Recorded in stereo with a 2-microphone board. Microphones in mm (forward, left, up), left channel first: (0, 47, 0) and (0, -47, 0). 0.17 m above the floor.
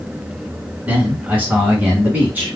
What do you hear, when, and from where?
0.9 s a man speaking: 20° right (ahead or behind), 1.4 m